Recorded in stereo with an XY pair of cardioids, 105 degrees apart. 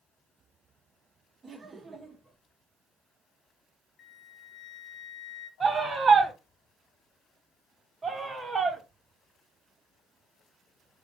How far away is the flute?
About 0.5 m.